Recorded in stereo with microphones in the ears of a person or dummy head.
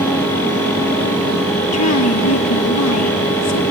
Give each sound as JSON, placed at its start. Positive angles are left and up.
{"t": 1.7, "sound": "a woman speaking", "side_deg": 75, "distance_m": 1.7}